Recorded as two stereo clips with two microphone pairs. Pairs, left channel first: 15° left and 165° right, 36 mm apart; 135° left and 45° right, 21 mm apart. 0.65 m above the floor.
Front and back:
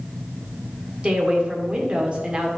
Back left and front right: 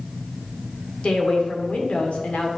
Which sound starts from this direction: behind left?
A woman speaking, at 1.0 s.